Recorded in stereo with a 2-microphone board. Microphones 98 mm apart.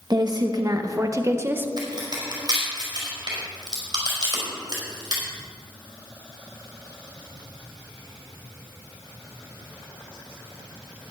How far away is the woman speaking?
About 1.4 m.